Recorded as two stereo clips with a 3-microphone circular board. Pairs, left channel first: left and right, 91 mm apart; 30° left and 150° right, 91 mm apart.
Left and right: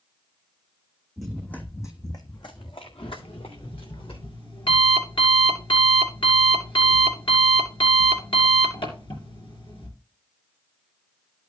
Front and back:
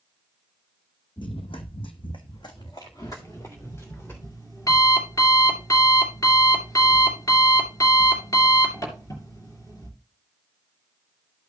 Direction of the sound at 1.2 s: Straight ahead.